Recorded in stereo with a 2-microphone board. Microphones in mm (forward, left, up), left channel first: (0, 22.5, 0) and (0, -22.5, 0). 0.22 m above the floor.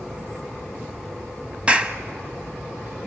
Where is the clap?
25° right (ahead or behind), 1.0 m.